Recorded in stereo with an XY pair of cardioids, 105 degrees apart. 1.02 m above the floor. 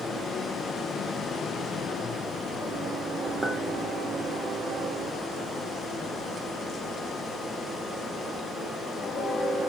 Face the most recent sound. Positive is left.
turn(degrees=-30)